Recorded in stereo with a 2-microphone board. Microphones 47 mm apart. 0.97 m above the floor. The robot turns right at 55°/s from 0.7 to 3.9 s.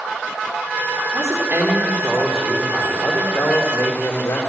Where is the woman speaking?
75° right, 2 m; by 4.4 s 80° left, 2 m.